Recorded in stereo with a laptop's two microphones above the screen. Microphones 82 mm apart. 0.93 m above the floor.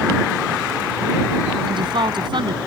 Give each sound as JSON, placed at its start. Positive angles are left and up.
{"t": 1.7, "sound": "a woman speaking", "side_deg": -70}